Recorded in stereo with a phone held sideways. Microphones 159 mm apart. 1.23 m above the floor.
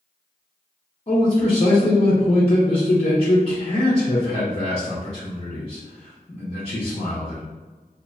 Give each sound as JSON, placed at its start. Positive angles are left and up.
{"t": 1.1, "sound": "a man speaking", "side_deg": 45, "distance_m": 0.6}